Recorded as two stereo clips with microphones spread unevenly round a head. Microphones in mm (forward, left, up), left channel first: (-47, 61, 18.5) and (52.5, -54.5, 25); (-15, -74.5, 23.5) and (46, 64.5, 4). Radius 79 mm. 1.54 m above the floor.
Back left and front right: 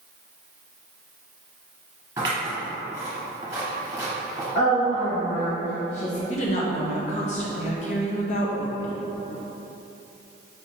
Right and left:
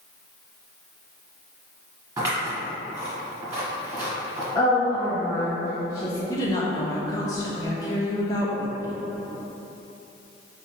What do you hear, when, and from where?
2.2 s scissors: 5° left, 1.7 m
4.5 s a woman speaking: straight behind, 1.0 m
6.3 s a woman speaking: 175° left, 0.8 m